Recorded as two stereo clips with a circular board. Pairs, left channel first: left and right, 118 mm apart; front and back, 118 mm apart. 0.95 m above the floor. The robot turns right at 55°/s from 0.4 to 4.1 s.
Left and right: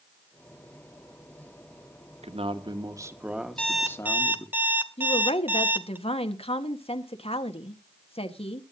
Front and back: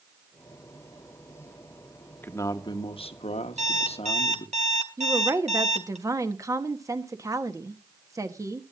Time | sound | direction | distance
2.2 | a man speaking | 75° right | 1.3 m
3.6 | an alarm clock | 170° left | 1.6 m
5.0 | a woman speaking | 120° left | 1.4 m